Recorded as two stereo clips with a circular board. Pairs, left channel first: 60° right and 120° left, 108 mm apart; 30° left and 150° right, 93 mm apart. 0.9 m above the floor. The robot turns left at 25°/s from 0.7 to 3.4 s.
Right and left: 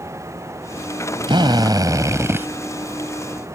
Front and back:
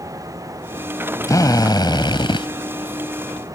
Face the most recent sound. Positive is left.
turn(degrees=30)